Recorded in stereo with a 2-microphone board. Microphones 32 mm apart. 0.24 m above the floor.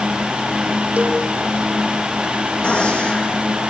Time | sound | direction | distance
1.0 | a cowbell | 50° right (ahead or behind) | 2.5 m
2.6 | a gunshot | 50° left (ahead or behind) | 7.5 m